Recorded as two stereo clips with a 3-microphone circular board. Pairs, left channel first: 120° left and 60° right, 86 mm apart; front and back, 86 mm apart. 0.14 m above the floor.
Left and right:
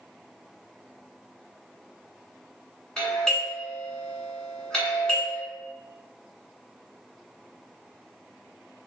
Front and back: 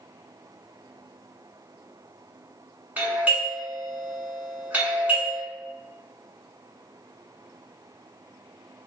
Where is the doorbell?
175° right, 1.6 m.